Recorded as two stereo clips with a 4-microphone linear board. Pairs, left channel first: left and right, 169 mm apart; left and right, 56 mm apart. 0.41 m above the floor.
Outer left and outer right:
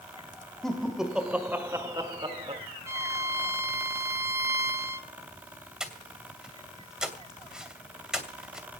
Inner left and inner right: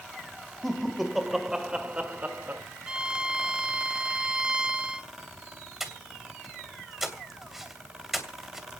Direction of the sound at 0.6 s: Centre (ahead or behind).